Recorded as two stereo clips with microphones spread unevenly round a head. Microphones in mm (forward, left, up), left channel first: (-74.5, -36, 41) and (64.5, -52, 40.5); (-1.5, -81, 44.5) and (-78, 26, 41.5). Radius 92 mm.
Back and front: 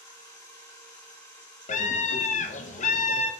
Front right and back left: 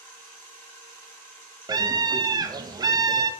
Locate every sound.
0.0 s a machine running: 125° right, 1.9 m
1.7 s a scream: straight behind, 0.5 m